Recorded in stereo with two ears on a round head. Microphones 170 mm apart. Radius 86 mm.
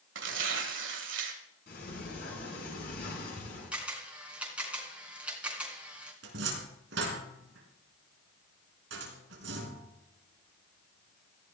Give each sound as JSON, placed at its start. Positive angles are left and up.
{"t": 0.1, "sound": "tearing paper", "side_deg": -65, "distance_m": 2.0}
{"t": 1.7, "sound": "a sliding door", "side_deg": 55, "distance_m": 9.5}
{"t": 3.7, "sound": "a camera shutter", "side_deg": -5, "distance_m": 3.5}
{"t": 6.2, "sound": "a cupboard door", "side_deg": -65, "distance_m": 4.0}